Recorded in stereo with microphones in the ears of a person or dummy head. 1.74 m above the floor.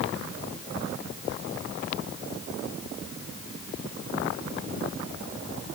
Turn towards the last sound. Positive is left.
No sound to turn to.